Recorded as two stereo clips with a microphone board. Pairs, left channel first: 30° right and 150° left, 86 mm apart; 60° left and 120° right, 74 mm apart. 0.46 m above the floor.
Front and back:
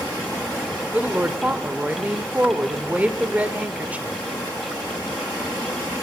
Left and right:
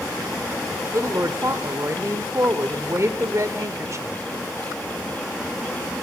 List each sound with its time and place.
0.9 s a woman speaking: 145° right, 1.3 m